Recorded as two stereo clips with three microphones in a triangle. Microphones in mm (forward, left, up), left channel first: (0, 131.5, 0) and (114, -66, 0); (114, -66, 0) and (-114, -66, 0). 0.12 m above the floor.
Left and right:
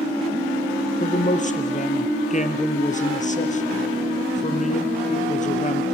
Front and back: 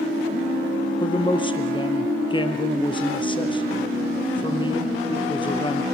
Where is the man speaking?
65° left, 2.5 m.